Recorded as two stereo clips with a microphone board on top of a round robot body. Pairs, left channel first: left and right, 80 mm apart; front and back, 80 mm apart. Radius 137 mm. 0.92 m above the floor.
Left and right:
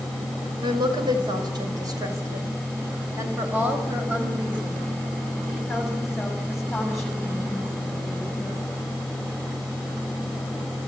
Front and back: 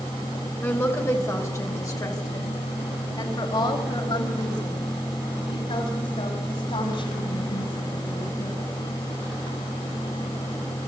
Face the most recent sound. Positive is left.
turn(degrees=10)